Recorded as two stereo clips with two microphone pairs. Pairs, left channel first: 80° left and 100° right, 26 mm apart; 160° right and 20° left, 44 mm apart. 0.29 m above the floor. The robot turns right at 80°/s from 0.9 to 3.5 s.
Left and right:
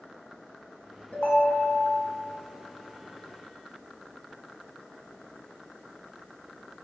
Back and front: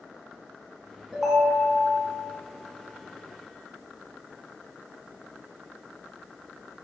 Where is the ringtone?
95° left, 1.9 m; by 1.8 s 150° left, 1.9 m.